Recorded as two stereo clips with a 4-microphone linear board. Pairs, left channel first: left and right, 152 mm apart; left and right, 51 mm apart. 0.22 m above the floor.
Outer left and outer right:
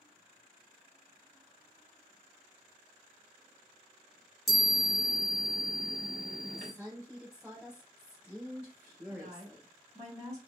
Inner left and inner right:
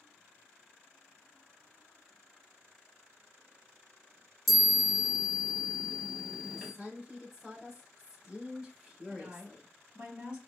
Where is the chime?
Centre (ahead or behind), 1.3 m.